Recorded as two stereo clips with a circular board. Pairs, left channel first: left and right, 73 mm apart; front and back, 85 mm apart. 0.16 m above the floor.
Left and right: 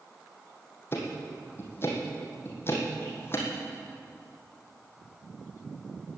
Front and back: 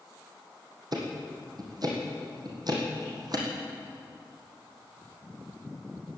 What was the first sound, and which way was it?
Ticking, 145° left.